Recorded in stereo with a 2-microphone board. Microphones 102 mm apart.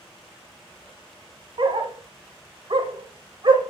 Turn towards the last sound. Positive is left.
turn(degrees=-55)  # may be behind; listen again after turning